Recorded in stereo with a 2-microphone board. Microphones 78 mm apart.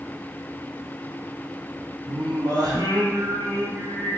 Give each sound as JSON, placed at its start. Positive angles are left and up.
{"t": 2.1, "sound": "singing", "side_deg": -60, "distance_m": 1.5}